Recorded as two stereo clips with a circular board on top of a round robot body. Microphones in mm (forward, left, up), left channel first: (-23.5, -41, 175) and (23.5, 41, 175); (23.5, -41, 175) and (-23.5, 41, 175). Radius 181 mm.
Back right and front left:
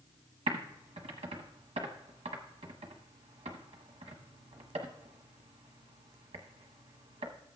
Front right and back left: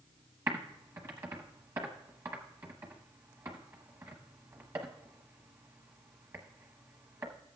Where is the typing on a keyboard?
60° left, 0.8 m.